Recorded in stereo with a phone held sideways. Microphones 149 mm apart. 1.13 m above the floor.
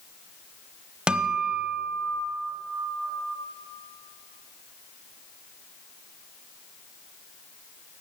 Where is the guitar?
5° right (ahead or behind), 1.0 m.